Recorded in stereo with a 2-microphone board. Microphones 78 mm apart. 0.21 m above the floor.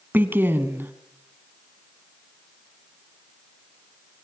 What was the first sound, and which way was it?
A woman speaking, 25° right (ahead or behind).